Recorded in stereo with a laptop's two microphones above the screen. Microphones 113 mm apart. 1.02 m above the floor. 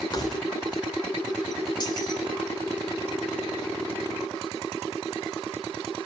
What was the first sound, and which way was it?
Keys jangling, 35° left (ahead or behind).